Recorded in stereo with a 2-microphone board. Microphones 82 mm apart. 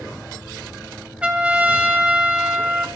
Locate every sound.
1.2 s a trumpet: 15° right (ahead or behind), 1.4 m